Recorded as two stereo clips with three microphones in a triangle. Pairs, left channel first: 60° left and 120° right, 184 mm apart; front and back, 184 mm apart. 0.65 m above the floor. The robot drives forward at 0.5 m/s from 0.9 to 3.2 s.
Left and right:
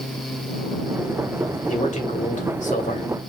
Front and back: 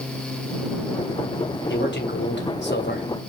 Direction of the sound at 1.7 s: 10° left.